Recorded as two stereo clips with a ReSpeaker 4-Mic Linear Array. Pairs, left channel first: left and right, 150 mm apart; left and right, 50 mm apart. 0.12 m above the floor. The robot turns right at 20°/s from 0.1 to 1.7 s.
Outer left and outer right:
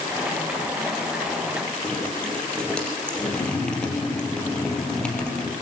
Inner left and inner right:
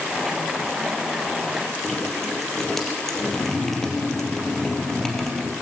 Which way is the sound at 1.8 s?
5° left (ahead or behind).